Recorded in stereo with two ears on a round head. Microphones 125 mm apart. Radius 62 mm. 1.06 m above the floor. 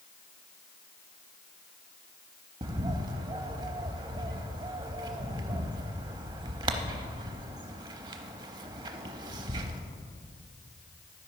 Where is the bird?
30° right (ahead or behind), 0.6 m.